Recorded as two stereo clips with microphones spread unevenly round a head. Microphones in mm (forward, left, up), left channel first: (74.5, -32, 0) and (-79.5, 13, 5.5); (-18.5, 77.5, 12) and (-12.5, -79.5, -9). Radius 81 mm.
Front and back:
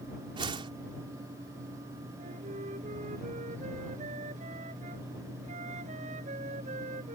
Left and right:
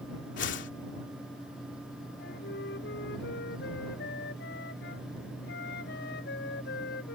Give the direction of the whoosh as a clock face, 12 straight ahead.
9 o'clock.